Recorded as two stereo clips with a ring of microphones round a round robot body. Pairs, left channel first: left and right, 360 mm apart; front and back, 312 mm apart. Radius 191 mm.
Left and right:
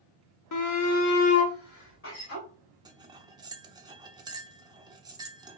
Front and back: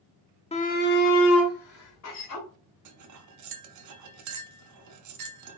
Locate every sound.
0.5 s a shout: 65° left, 1.0 m; by 2.5 s 30° left, 2.5 m
2.9 s cutlery clinking: 170° right, 0.7 m